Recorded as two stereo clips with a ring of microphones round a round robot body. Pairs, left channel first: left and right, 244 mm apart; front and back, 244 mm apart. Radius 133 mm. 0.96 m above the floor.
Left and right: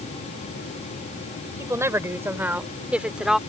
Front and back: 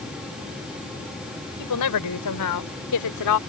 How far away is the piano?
No piano in this recording.